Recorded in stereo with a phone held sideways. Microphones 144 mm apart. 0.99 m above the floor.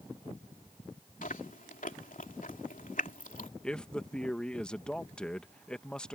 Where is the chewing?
70° left (ahead or behind).